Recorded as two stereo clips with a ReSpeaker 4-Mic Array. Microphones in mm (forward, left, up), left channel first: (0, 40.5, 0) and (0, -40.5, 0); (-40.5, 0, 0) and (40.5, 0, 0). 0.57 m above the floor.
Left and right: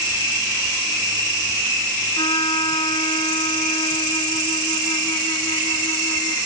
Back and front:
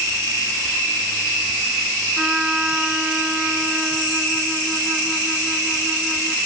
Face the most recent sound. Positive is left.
turn(degrees=85)